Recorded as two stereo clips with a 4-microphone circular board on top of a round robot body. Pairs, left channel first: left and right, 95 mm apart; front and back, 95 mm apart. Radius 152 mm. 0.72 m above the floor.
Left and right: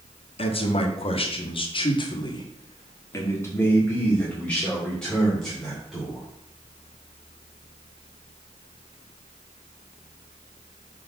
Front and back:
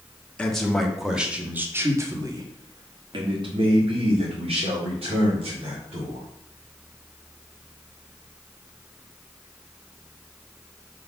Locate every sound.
0.4 s a man speaking: 80° left, 1.5 m; by 6.2 s straight behind, 3 m